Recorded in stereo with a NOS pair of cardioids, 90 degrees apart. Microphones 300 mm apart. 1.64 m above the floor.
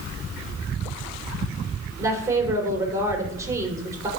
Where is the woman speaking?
10° right, 6 m.